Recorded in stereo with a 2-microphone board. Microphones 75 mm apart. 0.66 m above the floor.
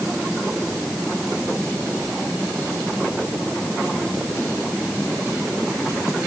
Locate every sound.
Only background noise.